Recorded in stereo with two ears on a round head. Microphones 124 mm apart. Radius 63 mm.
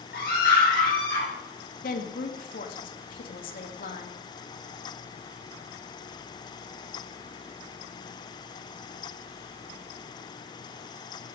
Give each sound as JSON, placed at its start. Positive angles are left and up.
{"t": 0.1, "sound": "a scream", "side_deg": 75, "distance_m": 7.5}
{"t": 1.8, "sound": "a woman speaking", "side_deg": 70, "distance_m": 2.0}